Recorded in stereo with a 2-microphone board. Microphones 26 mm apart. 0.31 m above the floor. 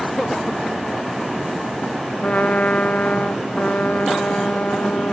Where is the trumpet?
60° left (ahead or behind), 0.7 m.